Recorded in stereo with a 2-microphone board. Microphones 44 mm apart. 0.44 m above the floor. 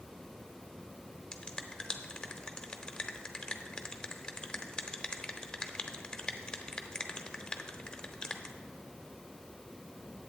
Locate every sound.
1.3 s a finger snap: 15° left (ahead or behind), 0.7 m